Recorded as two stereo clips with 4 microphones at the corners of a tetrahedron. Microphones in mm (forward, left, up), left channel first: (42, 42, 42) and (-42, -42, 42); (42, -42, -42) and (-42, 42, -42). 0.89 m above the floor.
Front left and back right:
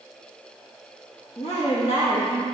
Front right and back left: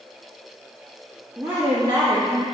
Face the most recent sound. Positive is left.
turn(degrees=100)